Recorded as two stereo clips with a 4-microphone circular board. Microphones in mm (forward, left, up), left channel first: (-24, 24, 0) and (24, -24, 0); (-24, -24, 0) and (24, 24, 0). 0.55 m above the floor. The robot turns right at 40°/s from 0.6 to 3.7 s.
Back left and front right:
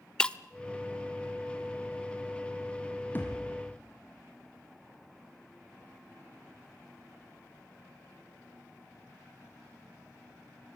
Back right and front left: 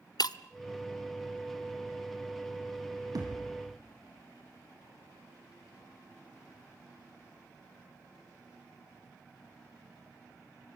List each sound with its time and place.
0.2 s breaking glass: 150° right, 0.7 m
3.1 s a thud: 75° left, 5.5 m; by 3.6 s 90° left, 5.5 m